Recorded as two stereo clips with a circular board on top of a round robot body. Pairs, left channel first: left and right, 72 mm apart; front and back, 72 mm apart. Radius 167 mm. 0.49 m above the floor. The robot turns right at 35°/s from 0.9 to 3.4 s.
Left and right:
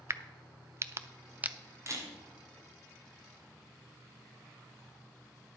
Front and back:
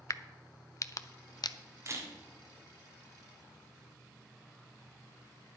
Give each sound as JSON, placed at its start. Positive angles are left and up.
{"t": 0.1, "sound": "a crack", "azimuth_deg": -40, "distance_m": 0.6}
{"t": 1.9, "sound": "a camera shutter", "azimuth_deg": -135, "distance_m": 2.5}